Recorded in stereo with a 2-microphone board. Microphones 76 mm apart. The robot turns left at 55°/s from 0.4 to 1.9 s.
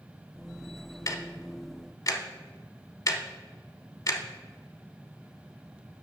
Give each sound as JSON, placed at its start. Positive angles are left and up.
{"t": 1.1, "sound": "ticking", "side_deg": 45, "distance_m": 0.6}